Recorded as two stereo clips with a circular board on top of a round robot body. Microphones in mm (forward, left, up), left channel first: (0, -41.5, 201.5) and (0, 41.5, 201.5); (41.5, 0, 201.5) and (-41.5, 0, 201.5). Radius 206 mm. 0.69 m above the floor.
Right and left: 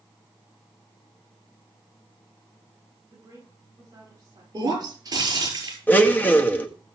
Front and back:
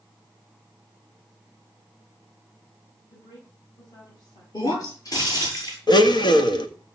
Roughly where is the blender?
Ahead.